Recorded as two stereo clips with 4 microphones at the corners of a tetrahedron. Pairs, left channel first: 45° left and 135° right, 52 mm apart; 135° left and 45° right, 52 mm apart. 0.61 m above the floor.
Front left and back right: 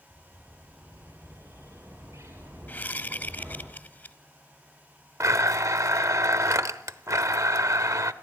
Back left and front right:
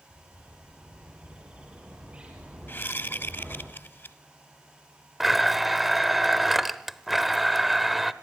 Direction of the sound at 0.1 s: 115° right.